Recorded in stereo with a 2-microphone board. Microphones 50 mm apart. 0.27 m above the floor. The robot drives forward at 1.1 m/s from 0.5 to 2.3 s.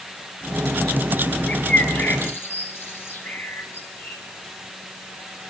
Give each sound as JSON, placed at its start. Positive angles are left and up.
{"t": 1.5, "sound": "a bird", "side_deg": 40, "distance_m": 4.0}